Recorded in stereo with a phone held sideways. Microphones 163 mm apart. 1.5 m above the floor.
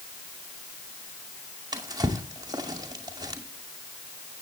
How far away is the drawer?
About 2 m.